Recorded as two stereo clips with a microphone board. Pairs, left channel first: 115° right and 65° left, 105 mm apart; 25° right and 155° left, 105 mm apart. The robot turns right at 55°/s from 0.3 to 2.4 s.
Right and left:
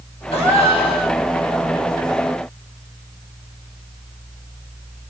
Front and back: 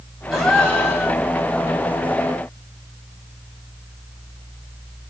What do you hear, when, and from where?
0.3 s a gasp: 120° right, 1.6 m; by 1.2 s 70° right, 1.6 m